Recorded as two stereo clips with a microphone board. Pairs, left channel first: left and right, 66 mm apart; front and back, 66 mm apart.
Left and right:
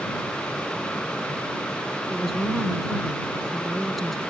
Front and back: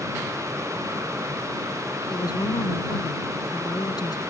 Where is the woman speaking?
Straight ahead.